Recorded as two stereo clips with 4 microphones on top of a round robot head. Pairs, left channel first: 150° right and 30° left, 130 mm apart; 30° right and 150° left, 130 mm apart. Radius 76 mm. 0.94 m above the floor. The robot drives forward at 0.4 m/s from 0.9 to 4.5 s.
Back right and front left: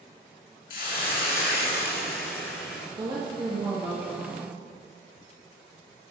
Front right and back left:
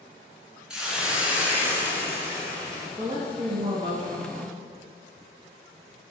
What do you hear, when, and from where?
0.7 s a hiss: 130° right, 1.7 m; by 2.9 s 145° right, 2.5 m
3.0 s a woman speaking: 85° left, 1.6 m; by 4.6 s 110° left, 1.7 m